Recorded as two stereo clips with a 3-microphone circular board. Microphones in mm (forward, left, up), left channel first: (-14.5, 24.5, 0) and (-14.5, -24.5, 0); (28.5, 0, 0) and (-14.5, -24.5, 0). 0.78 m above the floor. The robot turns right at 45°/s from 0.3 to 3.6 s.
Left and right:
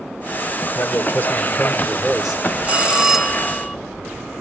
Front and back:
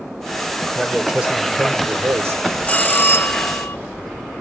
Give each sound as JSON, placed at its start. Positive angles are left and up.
{"t": 0.8, "sound": "a man speaking", "azimuth_deg": 120, "distance_m": 2.0}
{"t": 2.6, "sound": "a bell", "azimuth_deg": -35, "distance_m": 0.9}